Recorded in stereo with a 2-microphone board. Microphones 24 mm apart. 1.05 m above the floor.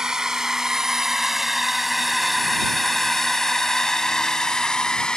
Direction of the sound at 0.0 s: 30° right (ahead or behind).